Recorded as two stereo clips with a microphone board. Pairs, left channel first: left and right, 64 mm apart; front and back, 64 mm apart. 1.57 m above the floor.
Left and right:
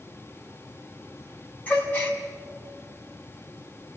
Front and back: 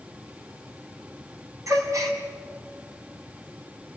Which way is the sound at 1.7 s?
150° left.